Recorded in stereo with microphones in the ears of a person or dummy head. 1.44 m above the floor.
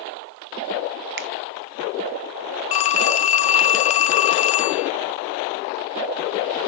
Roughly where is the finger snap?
Right.